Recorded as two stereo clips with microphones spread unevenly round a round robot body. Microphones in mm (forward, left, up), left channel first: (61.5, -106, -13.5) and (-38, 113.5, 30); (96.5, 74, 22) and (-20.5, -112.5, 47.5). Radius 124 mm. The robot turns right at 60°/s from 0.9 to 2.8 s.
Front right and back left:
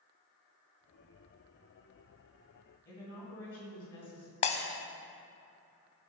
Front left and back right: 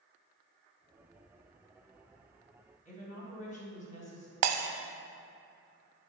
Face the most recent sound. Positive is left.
turn(degrees=-130)